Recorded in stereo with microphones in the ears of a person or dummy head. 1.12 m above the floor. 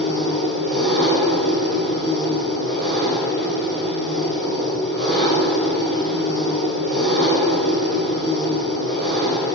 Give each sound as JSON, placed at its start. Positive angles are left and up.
{"t": 0.0, "sound": "an engine running", "side_deg": -60, "distance_m": 4.0}